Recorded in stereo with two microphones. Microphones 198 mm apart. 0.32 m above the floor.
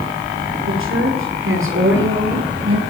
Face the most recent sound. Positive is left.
turn(degrees=-75)  # may be behind; listen again after turning